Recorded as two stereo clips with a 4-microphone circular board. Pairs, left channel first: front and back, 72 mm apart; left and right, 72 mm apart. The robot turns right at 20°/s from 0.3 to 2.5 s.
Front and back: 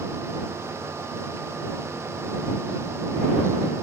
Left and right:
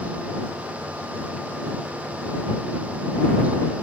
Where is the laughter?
No laughter in this recording.